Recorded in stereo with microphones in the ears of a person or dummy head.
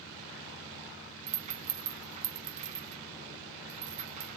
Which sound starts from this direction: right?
A rattle, at 1.3 s.